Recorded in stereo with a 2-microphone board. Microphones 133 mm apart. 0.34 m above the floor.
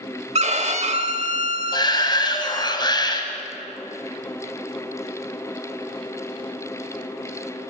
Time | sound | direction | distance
0.3 | a violin | 50° right (ahead or behind) | 1.0 m
1.7 | a shout | 30° left (ahead or behind) | 1.7 m